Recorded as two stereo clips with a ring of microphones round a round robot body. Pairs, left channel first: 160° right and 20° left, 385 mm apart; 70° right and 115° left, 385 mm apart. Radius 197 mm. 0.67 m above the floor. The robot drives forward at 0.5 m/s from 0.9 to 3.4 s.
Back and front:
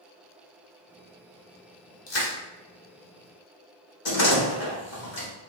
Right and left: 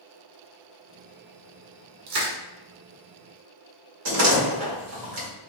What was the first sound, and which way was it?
Crushing, 145° left.